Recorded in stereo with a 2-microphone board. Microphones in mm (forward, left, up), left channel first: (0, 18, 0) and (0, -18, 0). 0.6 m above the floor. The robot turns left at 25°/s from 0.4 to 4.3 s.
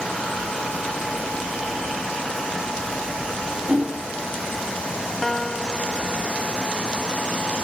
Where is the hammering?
45° right (ahead or behind); by 4.1 s 35° right (ahead or behind).